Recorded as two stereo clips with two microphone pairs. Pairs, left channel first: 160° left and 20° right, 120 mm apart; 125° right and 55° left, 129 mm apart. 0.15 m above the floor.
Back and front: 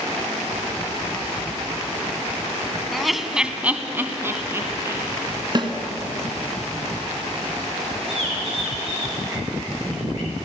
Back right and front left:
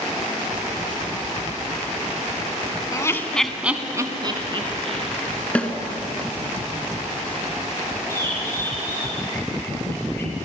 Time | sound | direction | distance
2.9 | laughter | 115° right | 1.1 m
5.5 | a snare drum | 50° right | 1.8 m
8.1 | a bird | 55° right | 7 m